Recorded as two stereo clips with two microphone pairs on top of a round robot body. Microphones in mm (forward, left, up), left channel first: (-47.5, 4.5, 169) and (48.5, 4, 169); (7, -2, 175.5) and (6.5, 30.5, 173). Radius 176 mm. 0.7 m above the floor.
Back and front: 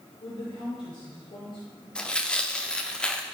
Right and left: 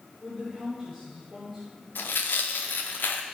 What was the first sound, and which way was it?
A woman speaking, 175° right.